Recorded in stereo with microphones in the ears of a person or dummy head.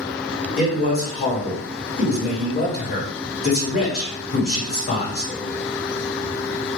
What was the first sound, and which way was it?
A man speaking, 45° left (ahead or behind).